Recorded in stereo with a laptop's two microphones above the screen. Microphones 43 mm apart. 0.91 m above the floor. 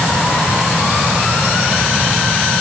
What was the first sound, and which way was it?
Only background noise.